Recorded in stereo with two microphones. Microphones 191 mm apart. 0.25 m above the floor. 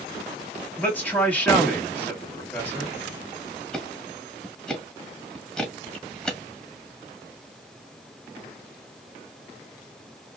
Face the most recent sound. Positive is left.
turn(degrees=5)  # may be behind; listen again after turning